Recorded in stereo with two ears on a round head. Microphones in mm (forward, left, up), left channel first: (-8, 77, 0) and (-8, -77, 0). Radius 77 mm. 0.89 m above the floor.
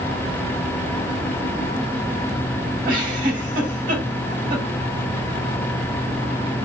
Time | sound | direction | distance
2.9 | a giggle | 50° right (ahead or behind) | 2.5 m